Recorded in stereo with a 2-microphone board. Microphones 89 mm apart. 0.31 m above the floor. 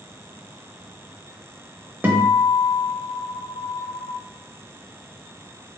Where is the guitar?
25° right (ahead or behind), 0.7 m.